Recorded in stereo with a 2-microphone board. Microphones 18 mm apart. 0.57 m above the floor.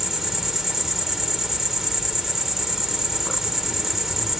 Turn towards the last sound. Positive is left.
turn(degrees=-20)  # may be behind; listen again after turning